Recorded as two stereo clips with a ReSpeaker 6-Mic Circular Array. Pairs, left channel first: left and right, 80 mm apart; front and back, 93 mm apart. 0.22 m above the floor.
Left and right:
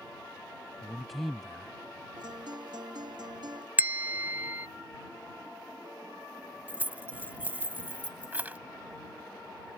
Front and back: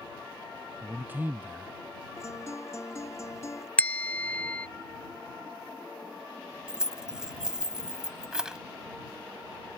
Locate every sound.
0.8 s a man speaking: straight behind
2.2 s a guitar: 60° right
3.8 s a bell: 55° right
6.7 s keys jangling: 110° right